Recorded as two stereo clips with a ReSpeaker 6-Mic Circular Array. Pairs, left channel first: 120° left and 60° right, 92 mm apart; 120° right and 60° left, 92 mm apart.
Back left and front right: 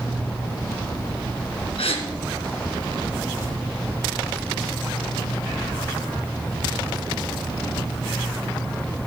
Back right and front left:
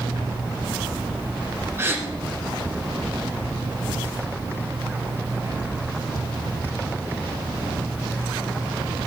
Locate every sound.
1.8 s a gasp: 125° left, 2 m